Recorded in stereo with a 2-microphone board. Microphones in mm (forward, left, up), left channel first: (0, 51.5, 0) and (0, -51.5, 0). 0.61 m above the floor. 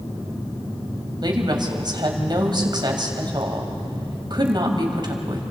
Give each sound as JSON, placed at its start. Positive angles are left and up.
{"t": 1.2, "sound": "a woman speaking", "side_deg": -45, "distance_m": 3.0}